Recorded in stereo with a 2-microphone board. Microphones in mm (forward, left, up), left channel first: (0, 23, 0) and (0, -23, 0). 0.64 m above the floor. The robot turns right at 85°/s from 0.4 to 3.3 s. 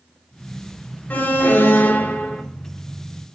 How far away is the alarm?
About 2 m.